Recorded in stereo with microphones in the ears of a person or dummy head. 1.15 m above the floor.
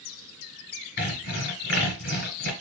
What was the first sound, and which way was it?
Sawing, 55° left (ahead or behind).